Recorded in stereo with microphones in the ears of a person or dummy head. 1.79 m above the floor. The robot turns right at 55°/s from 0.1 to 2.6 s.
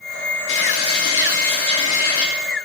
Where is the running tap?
65° left, 3 m; by 2.2 s 165° left, 3 m.